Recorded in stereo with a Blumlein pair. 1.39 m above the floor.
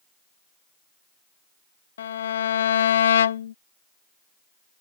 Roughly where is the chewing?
No chewing in this recording.